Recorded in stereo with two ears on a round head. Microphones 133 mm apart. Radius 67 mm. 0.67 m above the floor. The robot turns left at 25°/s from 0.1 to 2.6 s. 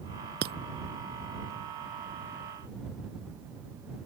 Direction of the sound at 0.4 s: 70° right (ahead or behind).